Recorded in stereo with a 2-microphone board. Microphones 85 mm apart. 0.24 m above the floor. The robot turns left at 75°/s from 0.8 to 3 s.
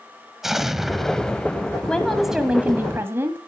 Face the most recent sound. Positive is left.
turn(degrees=-60)